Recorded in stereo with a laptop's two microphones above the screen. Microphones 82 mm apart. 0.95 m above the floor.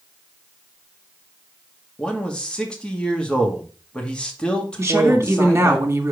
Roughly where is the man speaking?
Centre.